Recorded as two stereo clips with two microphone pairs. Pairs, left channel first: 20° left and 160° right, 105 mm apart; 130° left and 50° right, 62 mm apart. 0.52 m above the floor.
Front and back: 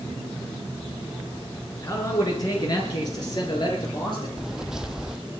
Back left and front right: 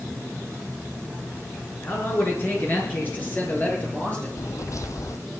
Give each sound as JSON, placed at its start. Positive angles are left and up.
{"t": 1.8, "sound": "a man speaking", "azimuth_deg": 75, "distance_m": 5.5}
{"t": 4.4, "sound": "footsteps", "azimuth_deg": 115, "distance_m": 1.0}